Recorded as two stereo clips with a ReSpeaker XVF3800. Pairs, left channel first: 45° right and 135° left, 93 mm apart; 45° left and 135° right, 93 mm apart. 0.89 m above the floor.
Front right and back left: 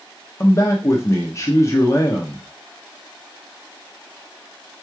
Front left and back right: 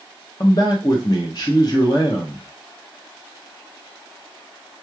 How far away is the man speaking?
About 0.8 m.